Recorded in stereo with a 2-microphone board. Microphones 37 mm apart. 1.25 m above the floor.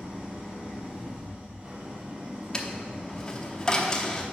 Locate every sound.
0.0 s an engine running: 30° right (ahead or behind), 2 m
2.5 s a dropped coin: 20° left (ahead or behind), 0.8 m